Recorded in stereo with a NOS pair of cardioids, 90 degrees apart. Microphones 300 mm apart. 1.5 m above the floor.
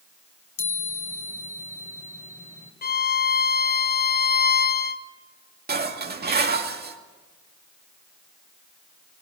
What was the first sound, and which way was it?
A chime, 25° left.